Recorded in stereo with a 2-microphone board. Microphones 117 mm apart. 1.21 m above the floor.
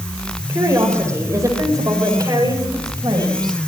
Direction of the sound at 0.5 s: 20° right (ahead or behind).